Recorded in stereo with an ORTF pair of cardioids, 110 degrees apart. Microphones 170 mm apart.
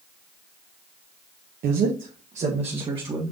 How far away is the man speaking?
About 1.2 m.